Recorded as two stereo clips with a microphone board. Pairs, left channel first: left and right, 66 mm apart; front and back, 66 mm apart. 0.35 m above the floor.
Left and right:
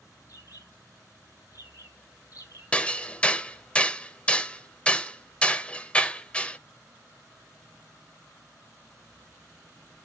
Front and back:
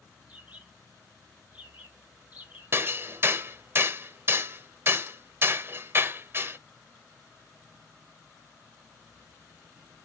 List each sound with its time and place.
0.3 s a bird: 115° left, 3.5 m
2.7 s hammering: 150° left, 0.7 m